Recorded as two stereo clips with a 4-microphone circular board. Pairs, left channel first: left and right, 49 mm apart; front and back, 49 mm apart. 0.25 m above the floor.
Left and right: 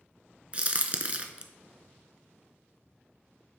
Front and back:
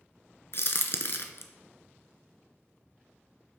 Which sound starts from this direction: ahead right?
A crack, at 0.5 s.